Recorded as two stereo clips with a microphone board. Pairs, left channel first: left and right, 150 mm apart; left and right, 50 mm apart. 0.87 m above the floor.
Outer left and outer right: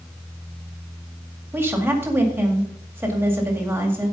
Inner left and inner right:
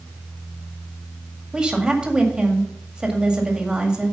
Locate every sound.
1.5 s a woman speaking: 15° right (ahead or behind), 1.9 m